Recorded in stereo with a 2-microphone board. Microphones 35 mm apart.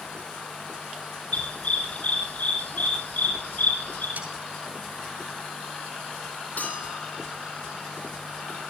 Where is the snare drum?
80° right, 9 m.